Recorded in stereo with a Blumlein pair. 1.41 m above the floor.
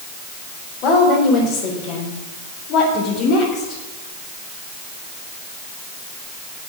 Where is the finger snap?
I don't hear a finger snap.